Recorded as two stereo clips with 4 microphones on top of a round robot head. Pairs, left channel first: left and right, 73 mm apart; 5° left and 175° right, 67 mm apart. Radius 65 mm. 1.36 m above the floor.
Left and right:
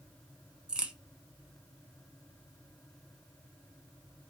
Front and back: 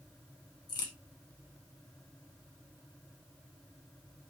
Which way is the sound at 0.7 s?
10° right.